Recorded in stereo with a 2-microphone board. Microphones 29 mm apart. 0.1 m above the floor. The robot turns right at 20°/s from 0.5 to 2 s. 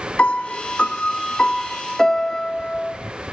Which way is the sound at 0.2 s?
130° left.